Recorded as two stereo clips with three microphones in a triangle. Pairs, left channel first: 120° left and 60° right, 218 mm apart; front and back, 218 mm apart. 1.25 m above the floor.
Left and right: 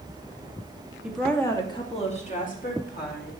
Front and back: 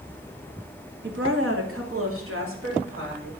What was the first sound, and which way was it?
A woman speaking, 145° right.